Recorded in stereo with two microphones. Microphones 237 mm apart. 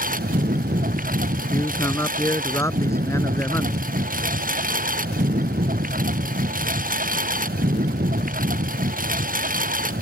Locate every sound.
0.0 s a lawn mower: 35° right (ahead or behind)
1.5 s a man speaking: 10° left (ahead or behind)